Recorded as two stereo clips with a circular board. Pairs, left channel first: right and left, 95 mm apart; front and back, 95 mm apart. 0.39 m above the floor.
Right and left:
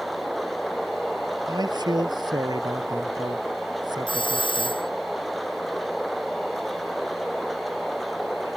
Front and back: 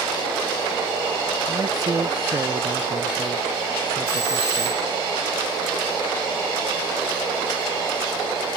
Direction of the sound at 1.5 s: 130° left.